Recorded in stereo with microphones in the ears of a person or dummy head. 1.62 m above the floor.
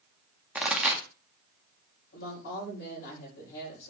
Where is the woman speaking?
60° left (ahead or behind), 7 m.